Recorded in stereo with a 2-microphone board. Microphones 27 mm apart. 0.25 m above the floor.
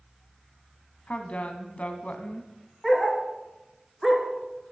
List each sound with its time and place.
1.1 s a woman speaking: 55° left (ahead or behind), 1.8 m
2.8 s a dog barking: 5° right (ahead or behind), 1.6 m